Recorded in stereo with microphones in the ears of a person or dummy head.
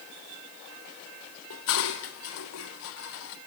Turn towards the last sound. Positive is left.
turn(degrees=70)  # may be behind; listen again after turning